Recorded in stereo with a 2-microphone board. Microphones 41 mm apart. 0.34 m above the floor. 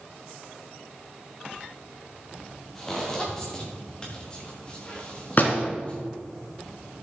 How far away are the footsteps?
About 5 m.